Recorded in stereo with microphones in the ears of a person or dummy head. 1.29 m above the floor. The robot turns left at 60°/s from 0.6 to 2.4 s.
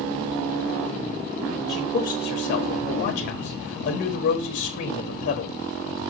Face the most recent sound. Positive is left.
turn(degrees=120)